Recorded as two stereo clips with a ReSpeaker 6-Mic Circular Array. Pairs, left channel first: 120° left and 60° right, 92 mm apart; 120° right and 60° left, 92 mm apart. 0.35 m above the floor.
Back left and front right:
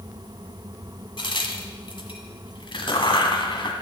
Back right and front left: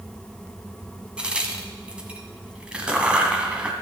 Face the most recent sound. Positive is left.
turn(degrees=135)